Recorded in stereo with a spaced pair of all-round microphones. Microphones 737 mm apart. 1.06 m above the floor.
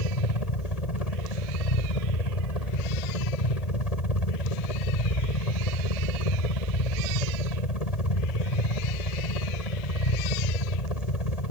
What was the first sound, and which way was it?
A helicopter, 55° left (ahead or behind).